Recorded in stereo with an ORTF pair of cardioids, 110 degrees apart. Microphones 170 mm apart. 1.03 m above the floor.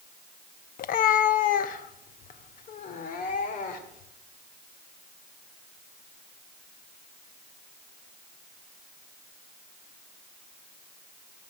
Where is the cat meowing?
60° left, 0.6 m; by 4.1 s 50° left, 2.5 m.